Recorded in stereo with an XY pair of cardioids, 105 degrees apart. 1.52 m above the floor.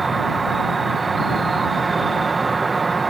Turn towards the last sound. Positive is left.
turn(degrees=-25)